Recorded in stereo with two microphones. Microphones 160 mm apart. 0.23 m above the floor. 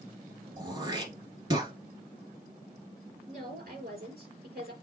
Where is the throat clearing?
30° right (ahead or behind), 1.5 m.